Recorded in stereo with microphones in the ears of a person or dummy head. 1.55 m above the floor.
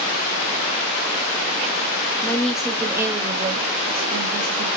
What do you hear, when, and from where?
2.2 s a woman speaking: 10° left (ahead or behind), 0.9 m; by 4.8 s 60° right (ahead or behind), 1.3 m